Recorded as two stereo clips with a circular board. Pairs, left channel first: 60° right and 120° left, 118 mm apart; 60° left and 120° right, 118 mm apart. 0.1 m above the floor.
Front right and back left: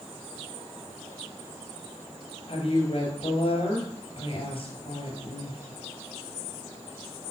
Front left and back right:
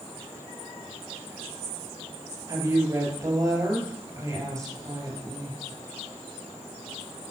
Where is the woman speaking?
65° right, 2.5 m.